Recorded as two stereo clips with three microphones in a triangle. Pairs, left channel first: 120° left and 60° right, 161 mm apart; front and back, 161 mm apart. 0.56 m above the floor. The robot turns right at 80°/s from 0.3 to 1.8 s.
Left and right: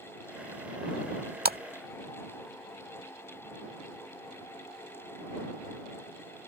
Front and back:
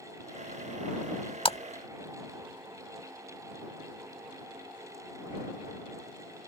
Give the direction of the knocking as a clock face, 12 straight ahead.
No knocking in this recording.